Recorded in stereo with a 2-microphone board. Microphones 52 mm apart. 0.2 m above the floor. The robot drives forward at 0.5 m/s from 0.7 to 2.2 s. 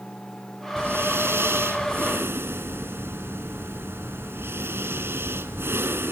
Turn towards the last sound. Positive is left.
turn(degrees=-60)  # may be behind; listen again after turning